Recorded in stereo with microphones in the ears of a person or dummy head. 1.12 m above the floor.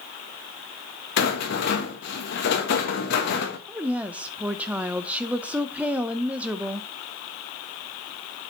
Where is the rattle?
55° left (ahead or behind), 1.4 m.